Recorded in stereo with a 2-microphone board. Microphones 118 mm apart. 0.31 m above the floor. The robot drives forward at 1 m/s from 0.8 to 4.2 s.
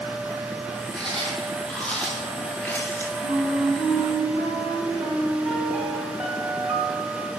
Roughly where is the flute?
Left.